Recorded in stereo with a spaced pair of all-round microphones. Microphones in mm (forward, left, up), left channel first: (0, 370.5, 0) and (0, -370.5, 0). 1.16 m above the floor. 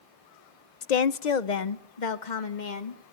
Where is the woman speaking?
60° left (ahead or behind), 0.6 m; by 3.1 s 80° left, 2 m.